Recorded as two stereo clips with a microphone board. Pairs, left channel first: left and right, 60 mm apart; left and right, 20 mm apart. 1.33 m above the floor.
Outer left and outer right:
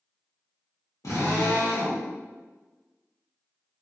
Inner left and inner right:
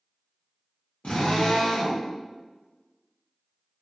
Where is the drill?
75° left (ahead or behind), 0.9 m.